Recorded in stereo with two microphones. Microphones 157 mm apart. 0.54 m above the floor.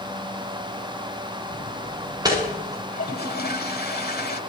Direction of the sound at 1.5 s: 30° right (ahead or behind).